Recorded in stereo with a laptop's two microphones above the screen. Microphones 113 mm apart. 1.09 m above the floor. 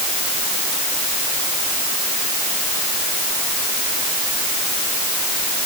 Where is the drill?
I don't hear a drill.